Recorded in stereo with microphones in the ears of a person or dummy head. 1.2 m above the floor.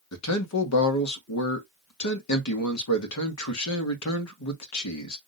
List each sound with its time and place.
0.1 s a man speaking: 85° left, 1.3 m